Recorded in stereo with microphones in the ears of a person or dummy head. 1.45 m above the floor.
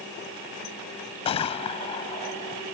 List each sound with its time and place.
1.2 s a gunshot: 25° left (ahead or behind)